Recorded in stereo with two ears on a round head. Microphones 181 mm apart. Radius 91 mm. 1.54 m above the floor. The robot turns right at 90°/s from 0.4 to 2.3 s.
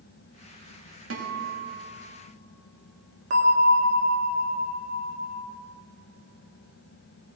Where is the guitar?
95° right, 2 m; by 2.1 s 5° right, 2 m.